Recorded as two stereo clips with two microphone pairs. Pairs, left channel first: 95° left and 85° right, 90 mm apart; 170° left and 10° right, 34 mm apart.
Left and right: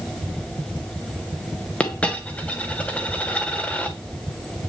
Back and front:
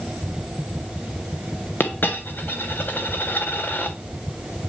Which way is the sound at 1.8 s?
170° left.